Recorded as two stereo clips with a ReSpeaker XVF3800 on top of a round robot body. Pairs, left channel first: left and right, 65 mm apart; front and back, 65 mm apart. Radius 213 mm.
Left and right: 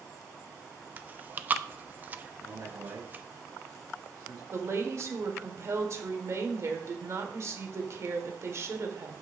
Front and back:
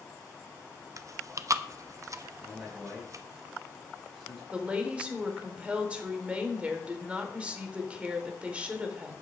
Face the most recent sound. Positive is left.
turn(degrees=-110)